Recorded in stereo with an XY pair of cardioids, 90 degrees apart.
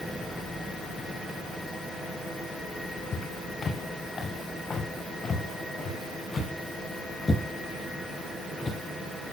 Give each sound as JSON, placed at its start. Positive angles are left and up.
{"t": 3.1, "sound": "footsteps", "azimuth_deg": 45, "distance_m": 7.0}